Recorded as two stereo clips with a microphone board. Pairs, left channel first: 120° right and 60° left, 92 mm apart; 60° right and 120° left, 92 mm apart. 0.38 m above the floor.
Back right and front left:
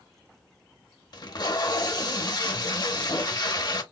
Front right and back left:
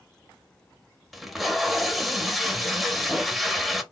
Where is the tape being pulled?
150° right, 0.6 m.